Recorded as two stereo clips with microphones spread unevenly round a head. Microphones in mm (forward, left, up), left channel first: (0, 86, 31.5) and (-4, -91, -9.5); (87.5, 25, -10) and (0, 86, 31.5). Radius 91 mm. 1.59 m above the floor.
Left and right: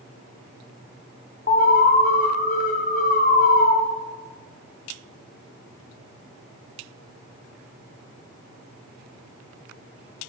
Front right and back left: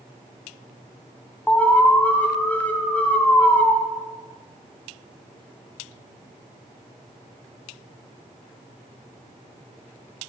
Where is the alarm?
50° left, 0.9 m.